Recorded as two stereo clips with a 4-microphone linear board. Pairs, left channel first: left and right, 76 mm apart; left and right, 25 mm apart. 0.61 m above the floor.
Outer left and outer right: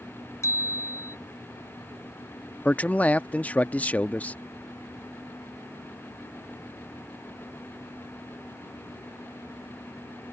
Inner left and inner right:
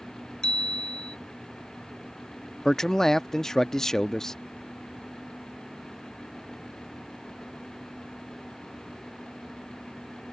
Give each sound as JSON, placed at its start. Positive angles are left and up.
{"t": 0.4, "sound": "a bicycle bell", "side_deg": 40}
{"t": 2.6, "sound": "a man speaking", "side_deg": 20}